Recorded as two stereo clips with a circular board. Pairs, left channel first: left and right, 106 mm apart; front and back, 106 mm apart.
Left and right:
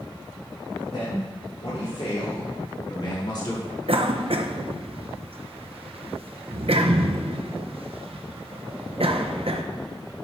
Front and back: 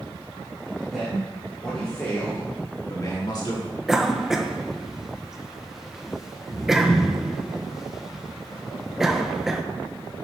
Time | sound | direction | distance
0.9 | a man speaking | 95° left | 3 m
3.9 | a cough | 95° right | 0.7 m